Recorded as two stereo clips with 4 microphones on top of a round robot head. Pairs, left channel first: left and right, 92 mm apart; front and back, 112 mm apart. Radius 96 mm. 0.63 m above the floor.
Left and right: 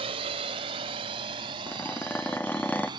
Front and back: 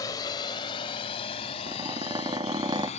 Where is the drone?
65° right; by 3.0 s 40° right.